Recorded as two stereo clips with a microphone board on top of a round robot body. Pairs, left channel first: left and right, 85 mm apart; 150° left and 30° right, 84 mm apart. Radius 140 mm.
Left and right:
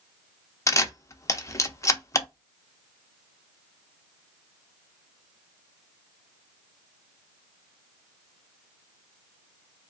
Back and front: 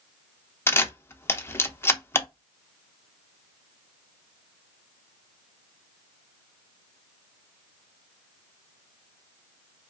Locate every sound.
0.7 s a camera shutter: 110° left, 0.8 m